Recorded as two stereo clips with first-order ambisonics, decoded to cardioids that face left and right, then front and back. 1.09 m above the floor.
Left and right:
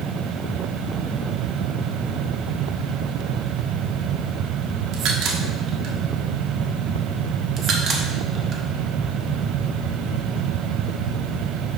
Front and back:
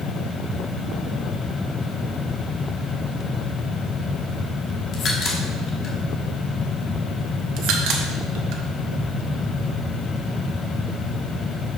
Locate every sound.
4.9 s a crack: 55° right, 1.2 m
7.6 s a crack: 150° right, 0.9 m